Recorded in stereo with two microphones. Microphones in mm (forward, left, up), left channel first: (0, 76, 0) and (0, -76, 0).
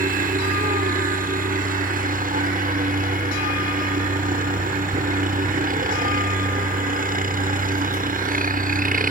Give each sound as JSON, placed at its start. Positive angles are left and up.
{"t": 0.0, "sound": "a helicopter", "side_deg": -65}